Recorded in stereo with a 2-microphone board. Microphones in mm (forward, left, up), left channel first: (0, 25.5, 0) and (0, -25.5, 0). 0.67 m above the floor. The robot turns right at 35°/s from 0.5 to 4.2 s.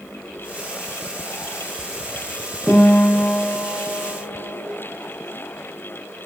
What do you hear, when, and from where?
2.7 s a guitar: centre (ahead or behind), 0.8 m; by 4.7 s 15° left (ahead or behind), 0.8 m